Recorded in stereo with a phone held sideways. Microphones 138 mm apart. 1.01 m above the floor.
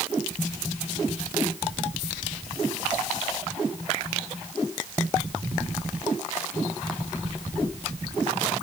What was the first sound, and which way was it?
Only background noise.